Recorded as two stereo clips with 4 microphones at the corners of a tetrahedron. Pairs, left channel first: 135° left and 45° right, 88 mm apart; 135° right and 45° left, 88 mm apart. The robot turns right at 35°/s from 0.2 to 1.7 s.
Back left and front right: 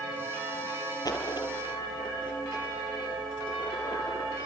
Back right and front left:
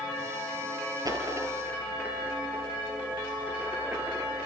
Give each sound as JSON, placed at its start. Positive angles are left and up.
{"t": 1.1, "sound": "a dropped coin", "azimuth_deg": 90, "distance_m": 5.0}